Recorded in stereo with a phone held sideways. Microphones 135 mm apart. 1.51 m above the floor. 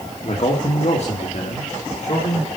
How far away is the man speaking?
About 2.5 m.